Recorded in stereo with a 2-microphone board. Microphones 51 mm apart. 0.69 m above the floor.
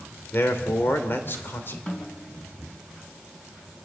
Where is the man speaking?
40° left (ahead or behind), 2.5 m.